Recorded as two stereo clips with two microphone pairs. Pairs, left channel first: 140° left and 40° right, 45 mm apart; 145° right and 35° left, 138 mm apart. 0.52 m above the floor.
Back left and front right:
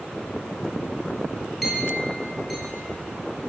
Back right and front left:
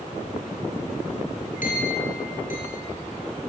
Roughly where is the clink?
Behind right.